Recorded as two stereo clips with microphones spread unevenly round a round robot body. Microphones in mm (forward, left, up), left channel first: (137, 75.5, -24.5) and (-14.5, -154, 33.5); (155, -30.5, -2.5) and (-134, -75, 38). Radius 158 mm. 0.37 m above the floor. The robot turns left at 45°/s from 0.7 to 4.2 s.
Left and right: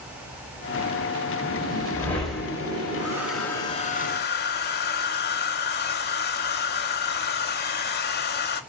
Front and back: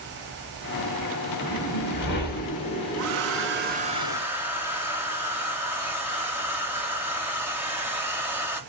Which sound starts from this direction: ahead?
A whoosh, at 1.4 s.